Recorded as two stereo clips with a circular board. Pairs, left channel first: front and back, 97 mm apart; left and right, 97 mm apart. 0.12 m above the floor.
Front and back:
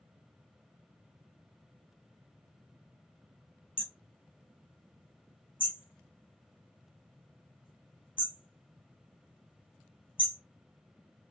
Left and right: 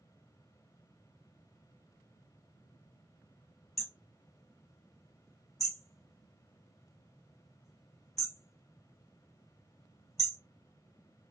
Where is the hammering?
Straight ahead, 2.5 m.